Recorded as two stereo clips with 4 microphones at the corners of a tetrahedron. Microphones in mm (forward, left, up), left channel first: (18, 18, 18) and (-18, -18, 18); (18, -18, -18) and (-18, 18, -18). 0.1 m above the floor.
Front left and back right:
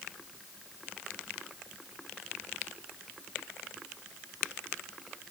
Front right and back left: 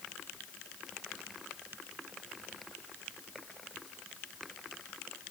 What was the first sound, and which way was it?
Only background noise.